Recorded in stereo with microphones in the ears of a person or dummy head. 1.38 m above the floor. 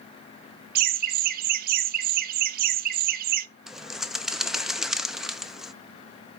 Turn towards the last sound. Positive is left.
turn(degrees=-10)  # may be behind; listen again after turning